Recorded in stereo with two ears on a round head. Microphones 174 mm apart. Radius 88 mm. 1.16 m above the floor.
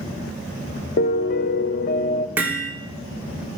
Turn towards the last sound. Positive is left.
turn(degrees=-10)  # may be behind; listen again after turning